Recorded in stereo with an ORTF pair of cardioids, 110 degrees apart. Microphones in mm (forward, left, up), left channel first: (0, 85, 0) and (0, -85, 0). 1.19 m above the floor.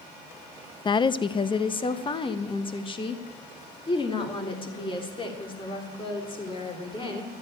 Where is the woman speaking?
30° left, 0.6 m.